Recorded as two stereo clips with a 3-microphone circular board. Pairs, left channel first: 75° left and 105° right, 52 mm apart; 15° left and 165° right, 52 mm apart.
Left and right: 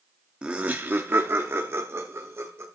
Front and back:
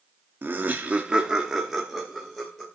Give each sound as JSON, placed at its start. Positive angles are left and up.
{"t": 0.4, "sound": "laughter", "azimuth_deg": -165, "distance_m": 1.0}